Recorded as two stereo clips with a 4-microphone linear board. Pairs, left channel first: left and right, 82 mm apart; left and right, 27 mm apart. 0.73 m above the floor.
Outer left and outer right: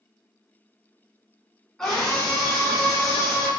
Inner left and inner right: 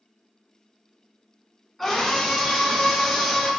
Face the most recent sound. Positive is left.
turn(degrees=15)  # may be behind; listen again after turning